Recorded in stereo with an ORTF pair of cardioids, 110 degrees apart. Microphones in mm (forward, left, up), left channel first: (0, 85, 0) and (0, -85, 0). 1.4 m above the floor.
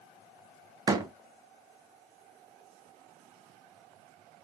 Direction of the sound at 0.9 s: 25° right.